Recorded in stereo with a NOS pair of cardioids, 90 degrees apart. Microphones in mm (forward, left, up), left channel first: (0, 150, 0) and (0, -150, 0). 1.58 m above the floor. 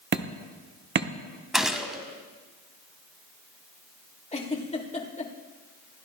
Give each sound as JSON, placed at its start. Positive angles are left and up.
{"t": 0.1, "sound": "hammering", "azimuth_deg": -35, "distance_m": 1.1}
{"t": 1.5, "sound": "a gunshot", "azimuth_deg": 0, "distance_m": 1.7}
{"t": 4.3, "sound": "a giggle", "azimuth_deg": 20, "distance_m": 2.5}